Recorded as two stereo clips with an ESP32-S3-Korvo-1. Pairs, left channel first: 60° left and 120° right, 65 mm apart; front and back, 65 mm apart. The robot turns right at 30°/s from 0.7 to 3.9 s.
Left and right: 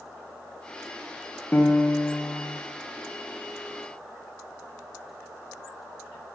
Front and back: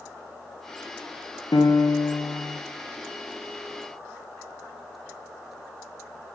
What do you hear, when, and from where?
1.5 s a piano: 5° right, 0.5 m; by 2.6 s 25° left, 0.5 m